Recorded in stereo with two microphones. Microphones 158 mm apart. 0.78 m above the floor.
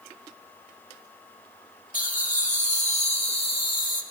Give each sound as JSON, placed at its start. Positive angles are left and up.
{"t": 1.9, "sound": "laughter", "side_deg": 60, "distance_m": 1.7}